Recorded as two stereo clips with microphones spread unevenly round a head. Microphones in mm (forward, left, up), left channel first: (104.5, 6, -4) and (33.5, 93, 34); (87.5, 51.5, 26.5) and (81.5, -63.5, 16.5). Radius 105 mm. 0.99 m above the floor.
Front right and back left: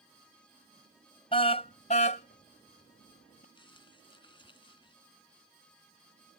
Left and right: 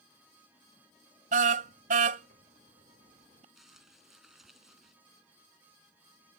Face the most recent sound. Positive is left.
turn(degrees=-5)